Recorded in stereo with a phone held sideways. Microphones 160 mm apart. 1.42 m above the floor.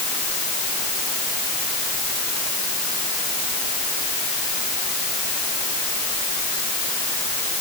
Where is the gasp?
No gasp in this recording.